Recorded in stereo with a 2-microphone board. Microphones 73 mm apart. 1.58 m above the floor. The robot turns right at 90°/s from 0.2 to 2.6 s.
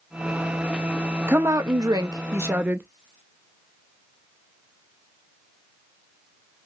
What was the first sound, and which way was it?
A woman speaking, 145° right.